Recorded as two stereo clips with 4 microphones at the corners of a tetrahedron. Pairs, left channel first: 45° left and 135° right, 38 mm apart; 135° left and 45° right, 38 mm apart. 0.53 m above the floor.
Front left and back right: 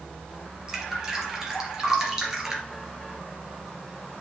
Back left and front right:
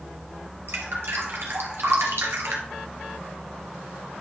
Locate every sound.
0.7 s dripping: 60° right, 2 m